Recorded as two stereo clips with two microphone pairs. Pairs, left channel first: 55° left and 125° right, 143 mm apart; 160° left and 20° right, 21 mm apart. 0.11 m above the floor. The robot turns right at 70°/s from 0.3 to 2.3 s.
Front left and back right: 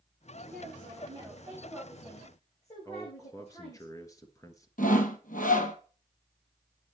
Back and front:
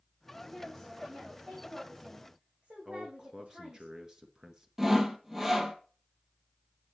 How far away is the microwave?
No microwave in this recording.